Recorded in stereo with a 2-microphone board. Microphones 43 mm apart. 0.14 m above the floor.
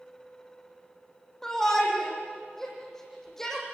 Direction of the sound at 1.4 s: 10° left (ahead or behind).